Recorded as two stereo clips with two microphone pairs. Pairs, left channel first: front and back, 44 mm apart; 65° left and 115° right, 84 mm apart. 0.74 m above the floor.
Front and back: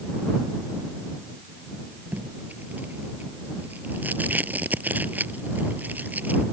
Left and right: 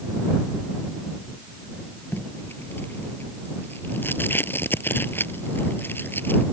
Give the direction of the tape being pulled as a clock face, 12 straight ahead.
8 o'clock.